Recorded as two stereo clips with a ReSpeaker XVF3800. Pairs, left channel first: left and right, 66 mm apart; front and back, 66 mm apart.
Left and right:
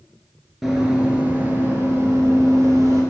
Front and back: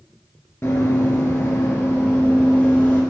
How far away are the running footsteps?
About 1.9 m.